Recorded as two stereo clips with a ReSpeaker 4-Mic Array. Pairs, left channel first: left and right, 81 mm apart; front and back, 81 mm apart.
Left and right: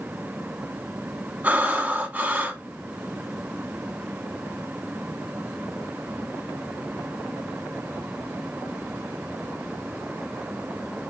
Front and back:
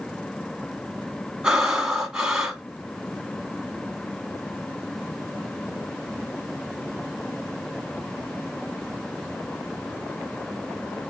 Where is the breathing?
110° right, 0.8 m.